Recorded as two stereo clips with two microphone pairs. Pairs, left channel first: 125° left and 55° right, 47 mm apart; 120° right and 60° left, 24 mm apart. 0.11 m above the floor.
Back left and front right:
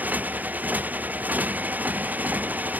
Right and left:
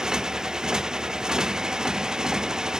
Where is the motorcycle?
5° right.